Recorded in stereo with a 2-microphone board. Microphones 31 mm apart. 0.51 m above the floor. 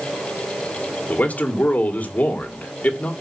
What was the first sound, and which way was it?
A man speaking, 50° left (ahead or behind).